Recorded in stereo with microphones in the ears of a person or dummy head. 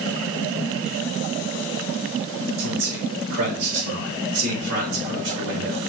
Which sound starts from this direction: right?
A man speaking, at 2.6 s.